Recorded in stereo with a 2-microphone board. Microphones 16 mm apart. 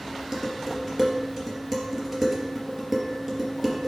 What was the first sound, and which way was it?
Dishes clattering, 20° right (ahead or behind).